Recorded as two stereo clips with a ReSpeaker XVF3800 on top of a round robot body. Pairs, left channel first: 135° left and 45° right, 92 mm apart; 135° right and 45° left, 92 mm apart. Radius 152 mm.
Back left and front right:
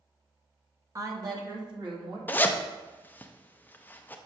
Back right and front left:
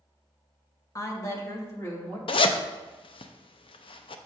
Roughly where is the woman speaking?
Right.